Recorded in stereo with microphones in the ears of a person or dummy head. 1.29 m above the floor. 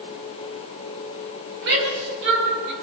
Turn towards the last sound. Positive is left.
turn(degrees=-60)  # may be behind; listen again after turning